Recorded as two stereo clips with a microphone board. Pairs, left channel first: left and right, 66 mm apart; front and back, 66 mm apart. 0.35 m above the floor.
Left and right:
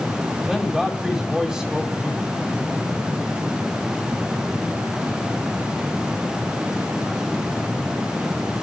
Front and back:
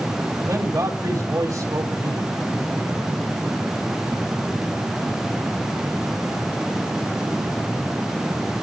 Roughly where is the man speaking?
Behind.